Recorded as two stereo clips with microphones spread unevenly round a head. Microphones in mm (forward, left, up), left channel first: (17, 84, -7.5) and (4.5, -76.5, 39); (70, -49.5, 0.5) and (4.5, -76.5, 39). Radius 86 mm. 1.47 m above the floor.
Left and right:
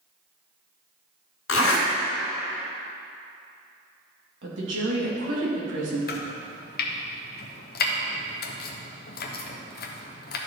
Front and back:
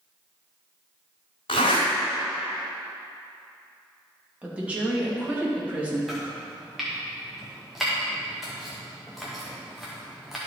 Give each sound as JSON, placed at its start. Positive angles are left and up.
{"t": 1.5, "sound": "a zipper", "azimuth_deg": 80, "distance_m": 2.5}
{"t": 4.4, "sound": "a woman speaking", "azimuth_deg": -85, "distance_m": 2.5}
{"t": 6.1, "sound": "chopping", "azimuth_deg": 105, "distance_m": 0.9}